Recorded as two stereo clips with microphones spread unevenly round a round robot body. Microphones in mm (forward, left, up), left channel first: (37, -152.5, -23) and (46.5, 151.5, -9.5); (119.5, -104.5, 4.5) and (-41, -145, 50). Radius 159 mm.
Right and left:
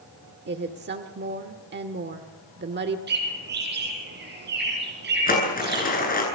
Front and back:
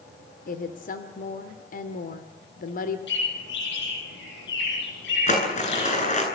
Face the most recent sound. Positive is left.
turn(degrees=-30)